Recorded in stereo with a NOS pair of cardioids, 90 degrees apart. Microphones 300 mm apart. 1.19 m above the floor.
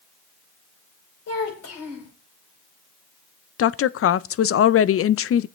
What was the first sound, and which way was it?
A child speaking, 55° left.